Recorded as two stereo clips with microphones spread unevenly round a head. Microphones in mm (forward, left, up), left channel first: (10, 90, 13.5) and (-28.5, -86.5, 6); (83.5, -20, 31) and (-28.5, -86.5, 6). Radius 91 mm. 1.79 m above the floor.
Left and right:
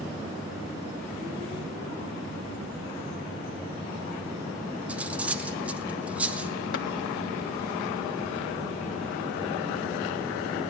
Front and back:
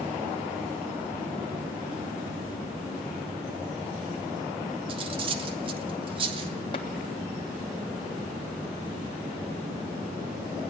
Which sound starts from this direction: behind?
Cutlery clinking, at 4.9 s.